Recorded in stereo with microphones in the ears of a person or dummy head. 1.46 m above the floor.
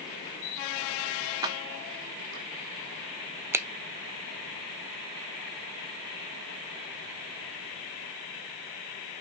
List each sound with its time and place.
1.4 s keys jangling: 15° right (ahead or behind), 0.7 m; by 2.5 s 55° right (ahead or behind), 1.7 m
3.5 s a finger snap: 15° right (ahead or behind), 0.7 m